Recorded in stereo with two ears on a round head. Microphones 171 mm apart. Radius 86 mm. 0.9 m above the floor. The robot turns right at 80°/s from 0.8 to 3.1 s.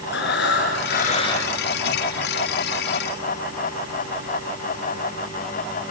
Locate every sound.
0.1 s breathing: 115° left, 5 m; by 1.5 s 175° left, 5 m